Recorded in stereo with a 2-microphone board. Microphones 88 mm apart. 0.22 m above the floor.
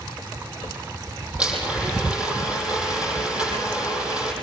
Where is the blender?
10° right (ahead or behind), 9 m.